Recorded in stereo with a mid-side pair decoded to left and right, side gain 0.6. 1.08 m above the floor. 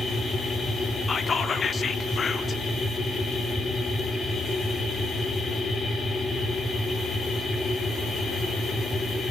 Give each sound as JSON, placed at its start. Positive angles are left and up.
{"t": 0.0, "sound": "a machine running", "azimuth_deg": 25, "distance_m": 4.0}
{"t": 1.1, "sound": "whispering", "azimuth_deg": 30, "distance_m": 2.0}